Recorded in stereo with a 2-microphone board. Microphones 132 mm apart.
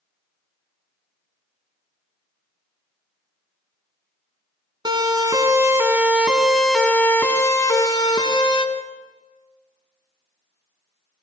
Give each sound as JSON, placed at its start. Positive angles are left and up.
{"t": 4.8, "sound": "a siren", "side_deg": -40, "distance_m": 2.5}